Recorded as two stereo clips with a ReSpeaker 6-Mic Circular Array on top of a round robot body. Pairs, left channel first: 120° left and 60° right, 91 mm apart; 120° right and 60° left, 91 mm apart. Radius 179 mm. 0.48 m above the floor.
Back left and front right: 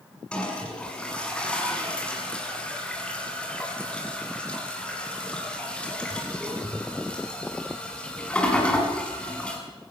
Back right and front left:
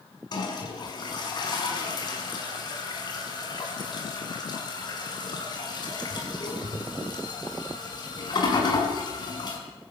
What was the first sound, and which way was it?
A toilet flushing, 160° right.